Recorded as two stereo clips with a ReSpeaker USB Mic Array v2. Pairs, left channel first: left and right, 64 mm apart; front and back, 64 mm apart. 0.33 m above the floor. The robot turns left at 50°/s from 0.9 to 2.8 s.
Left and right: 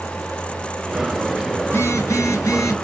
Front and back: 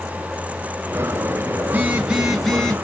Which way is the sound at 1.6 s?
125° left.